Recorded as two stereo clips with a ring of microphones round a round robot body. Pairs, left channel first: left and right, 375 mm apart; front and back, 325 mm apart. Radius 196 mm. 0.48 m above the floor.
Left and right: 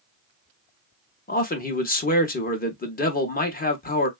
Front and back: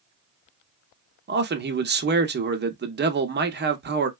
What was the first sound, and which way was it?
A man speaking, 145° left.